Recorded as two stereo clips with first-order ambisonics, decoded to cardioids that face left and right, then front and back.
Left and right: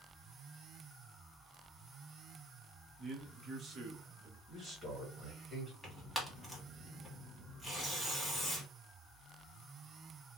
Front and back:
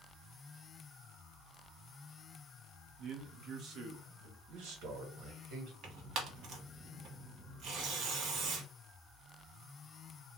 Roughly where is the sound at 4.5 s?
Behind.